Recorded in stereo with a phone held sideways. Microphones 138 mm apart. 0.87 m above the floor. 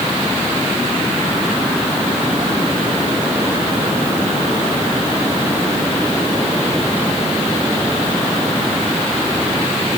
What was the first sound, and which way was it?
Only background noise.